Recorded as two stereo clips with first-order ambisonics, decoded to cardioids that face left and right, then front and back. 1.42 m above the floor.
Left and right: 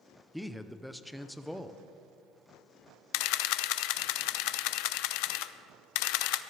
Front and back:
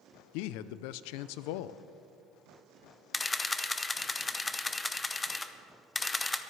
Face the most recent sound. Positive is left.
turn(degrees=80)